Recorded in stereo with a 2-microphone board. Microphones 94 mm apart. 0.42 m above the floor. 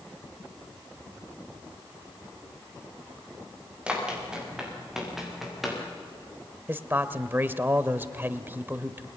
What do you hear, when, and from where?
3.9 s running footsteps: 10° right (ahead or behind), 9 m; by 5.8 s centre (ahead or behind), 9.5 m
6.7 s a man speaking: 20° right (ahead or behind), 1.2 m